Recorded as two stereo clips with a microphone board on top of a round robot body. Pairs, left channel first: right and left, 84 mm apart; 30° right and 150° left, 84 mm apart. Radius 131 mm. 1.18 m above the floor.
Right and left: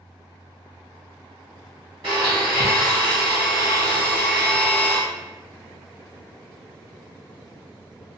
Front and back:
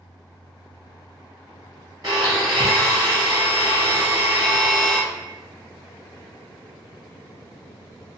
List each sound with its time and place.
2.0 s a blender: 105° left, 1.0 m